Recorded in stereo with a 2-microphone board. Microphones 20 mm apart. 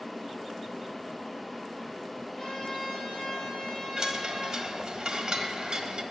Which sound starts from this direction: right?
A chime, at 4.0 s.